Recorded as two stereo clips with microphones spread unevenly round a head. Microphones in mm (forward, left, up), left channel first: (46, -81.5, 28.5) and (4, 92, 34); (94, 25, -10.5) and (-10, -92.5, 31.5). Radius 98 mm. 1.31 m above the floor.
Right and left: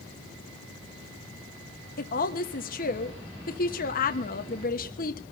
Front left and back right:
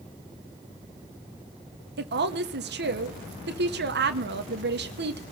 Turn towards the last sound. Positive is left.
turn(degrees=-115)